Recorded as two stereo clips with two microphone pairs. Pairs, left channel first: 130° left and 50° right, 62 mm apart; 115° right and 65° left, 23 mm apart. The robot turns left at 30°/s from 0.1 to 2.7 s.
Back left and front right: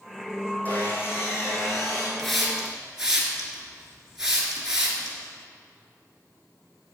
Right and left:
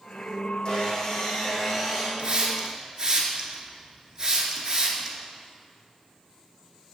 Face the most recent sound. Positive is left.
turn(degrees=25)